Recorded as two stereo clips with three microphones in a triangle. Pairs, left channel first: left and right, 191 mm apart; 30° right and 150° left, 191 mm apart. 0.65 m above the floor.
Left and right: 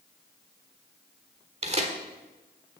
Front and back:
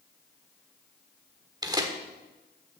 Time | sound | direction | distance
1.6 | tearing paper | 140° right | 1.4 m